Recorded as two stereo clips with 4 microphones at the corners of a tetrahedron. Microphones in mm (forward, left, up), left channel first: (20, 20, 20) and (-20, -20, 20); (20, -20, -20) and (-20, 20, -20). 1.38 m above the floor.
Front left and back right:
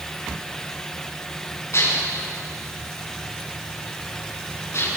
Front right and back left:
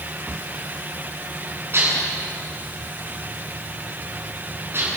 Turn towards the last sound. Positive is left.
turn(degrees=85)